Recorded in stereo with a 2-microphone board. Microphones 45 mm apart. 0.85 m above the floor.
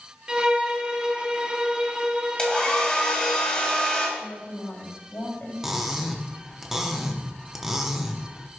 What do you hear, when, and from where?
0.3 s a violin: 20° right (ahead or behind), 0.6 m
2.4 s a hair dryer: 20° left (ahead or behind), 1.7 m
4.2 s a woman speaking: 55° left (ahead or behind), 3.5 m
5.6 s cutlery clinking: 10° right (ahead or behind), 0.7 m